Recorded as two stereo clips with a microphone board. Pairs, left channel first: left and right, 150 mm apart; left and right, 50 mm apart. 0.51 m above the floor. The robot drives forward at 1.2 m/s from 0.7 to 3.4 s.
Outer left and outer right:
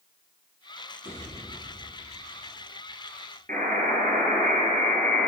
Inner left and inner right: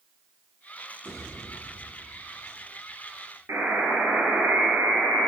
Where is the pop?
70° right (ahead or behind), 5 m; by 1.8 s 65° right (ahead or behind), 5.5 m.